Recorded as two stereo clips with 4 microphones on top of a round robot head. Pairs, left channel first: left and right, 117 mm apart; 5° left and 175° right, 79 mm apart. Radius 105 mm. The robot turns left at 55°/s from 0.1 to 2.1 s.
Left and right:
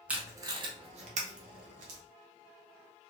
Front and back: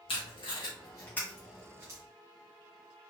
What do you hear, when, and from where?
0.1 s tape being pulled: 10° right, 0.7 m; by 2.0 s 115° right, 0.7 m